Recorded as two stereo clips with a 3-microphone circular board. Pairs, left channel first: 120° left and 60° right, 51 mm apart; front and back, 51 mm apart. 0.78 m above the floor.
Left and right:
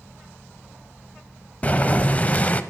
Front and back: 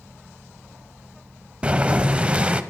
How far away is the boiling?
About 0.6 m.